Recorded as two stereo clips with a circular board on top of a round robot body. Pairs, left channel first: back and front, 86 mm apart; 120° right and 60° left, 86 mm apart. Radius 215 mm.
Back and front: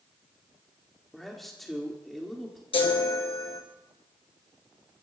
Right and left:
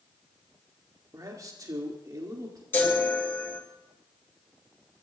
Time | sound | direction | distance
1.1 | a man speaking | 95° left | 2.0 m
2.7 | a chime | 175° left | 2 m